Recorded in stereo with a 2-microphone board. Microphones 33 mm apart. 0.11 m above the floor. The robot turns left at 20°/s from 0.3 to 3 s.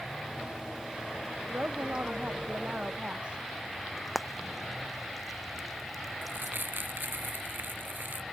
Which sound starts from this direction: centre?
Frying, at 4.0 s.